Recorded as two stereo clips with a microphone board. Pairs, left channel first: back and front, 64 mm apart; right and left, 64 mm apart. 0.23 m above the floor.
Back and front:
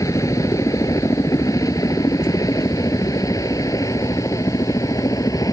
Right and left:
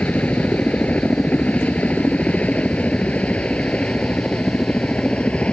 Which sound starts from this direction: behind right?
A helicopter, at 0.0 s.